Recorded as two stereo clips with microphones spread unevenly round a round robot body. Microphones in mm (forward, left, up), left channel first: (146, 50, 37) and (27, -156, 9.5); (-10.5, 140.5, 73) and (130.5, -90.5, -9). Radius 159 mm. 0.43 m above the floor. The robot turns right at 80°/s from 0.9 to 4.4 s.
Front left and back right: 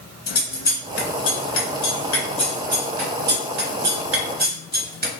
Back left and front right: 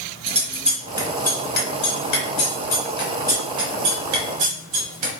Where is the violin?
I don't hear a violin.